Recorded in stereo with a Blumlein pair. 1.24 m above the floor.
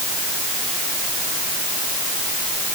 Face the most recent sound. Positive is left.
No sound to turn to.